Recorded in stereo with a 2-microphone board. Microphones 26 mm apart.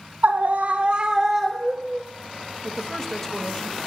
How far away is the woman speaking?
About 1.2 m.